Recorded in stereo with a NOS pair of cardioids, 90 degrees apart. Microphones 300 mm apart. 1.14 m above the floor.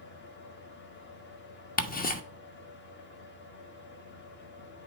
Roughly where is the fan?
Ahead left.